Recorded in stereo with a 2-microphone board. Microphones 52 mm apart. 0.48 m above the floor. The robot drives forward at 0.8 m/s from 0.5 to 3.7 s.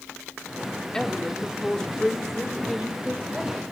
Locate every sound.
0.9 s a woman speaking: 10° left (ahead or behind), 0.7 m; by 3.6 s 5° left (ahead or behind), 1.9 m